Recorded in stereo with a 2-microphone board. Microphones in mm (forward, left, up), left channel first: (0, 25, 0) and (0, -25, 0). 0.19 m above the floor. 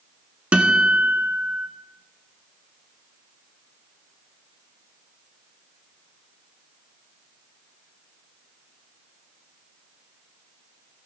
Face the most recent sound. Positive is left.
turn(degrees=-25)  # may be behind; listen again after turning